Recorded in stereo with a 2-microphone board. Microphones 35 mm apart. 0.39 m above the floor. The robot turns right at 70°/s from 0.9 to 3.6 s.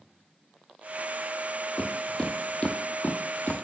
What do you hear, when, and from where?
1.8 s footsteps: 15° left (ahead or behind), 0.9 m; by 3.6 s 55° left (ahead or behind), 0.8 m